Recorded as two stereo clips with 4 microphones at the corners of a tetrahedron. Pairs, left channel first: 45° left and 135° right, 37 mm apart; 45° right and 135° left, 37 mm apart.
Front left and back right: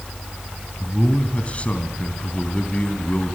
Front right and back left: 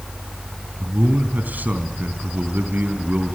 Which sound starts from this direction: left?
A man speaking, at 0.8 s.